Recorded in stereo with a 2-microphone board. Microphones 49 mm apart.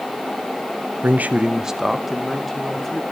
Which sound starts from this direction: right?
A man speaking, at 1.0 s.